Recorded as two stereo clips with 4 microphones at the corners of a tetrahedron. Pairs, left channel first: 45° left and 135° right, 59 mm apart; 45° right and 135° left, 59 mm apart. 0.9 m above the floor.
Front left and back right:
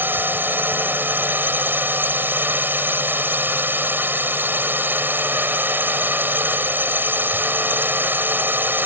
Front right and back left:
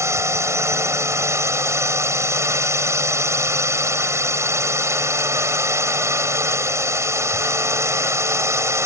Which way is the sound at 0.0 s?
170° left.